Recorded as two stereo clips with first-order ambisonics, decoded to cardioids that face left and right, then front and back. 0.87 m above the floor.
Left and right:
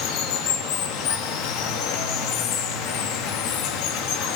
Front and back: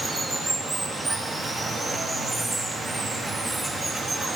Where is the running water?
100° left, 0.8 m.